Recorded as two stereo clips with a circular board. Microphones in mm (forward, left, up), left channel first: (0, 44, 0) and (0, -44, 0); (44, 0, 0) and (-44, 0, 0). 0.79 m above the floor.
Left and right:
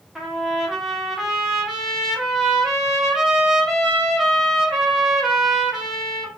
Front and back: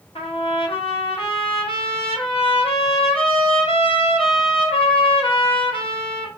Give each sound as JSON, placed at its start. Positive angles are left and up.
{"t": 0.1, "sound": "a trumpet", "azimuth_deg": -5, "distance_m": 0.8}